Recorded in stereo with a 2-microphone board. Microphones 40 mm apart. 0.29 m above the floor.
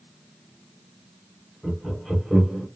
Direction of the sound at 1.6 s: 10° right (ahead or behind).